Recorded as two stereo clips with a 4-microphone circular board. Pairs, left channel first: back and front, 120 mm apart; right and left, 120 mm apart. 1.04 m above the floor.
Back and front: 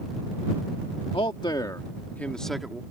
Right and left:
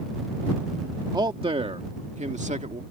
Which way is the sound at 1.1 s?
140° left.